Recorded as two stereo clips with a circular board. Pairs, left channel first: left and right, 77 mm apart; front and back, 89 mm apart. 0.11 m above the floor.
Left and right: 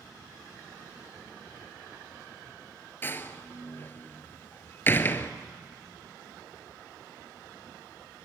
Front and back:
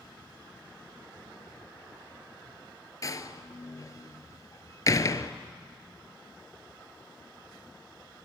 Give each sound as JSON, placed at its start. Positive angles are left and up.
{"t": 3.0, "sound": "a door slam", "azimuth_deg": 40, "distance_m": 1.1}